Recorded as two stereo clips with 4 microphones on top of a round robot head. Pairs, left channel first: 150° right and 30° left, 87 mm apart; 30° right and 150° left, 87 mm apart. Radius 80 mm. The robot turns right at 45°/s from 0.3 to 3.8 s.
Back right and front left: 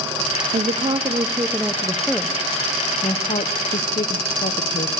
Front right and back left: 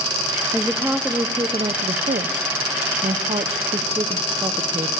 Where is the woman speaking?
55° left, 0.8 m; by 4.9 s 160° right, 0.8 m.